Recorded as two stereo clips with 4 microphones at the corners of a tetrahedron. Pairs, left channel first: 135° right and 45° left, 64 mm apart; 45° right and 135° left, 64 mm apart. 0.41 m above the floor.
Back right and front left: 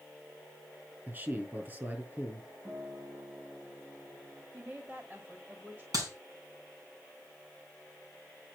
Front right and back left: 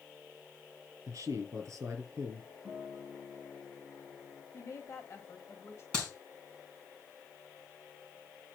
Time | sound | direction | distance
1.1 | a man speaking | 105° left | 4.5 m
2.6 | a guitar | 60° left | 3.5 m
4.5 | a woman speaking | 10° right | 1.7 m
5.9 | a clap | 30° left | 4 m